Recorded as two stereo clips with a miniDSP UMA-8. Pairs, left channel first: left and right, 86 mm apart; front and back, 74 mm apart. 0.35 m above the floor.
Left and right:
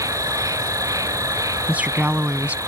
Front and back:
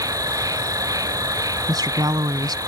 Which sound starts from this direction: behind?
A woman speaking, at 1.7 s.